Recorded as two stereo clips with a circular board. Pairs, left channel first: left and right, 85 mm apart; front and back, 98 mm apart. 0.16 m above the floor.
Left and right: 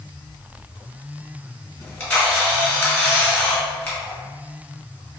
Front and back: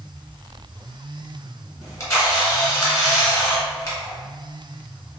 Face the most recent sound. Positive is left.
turn(degrees=30)